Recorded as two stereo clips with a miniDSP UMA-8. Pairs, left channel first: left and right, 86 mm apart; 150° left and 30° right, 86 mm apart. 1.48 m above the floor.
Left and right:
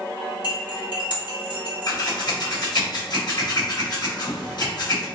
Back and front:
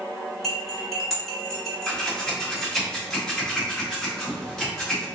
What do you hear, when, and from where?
0.4 s cutlery clinking: 60° left, 2 m
1.9 s scissors: 70° left, 1.7 m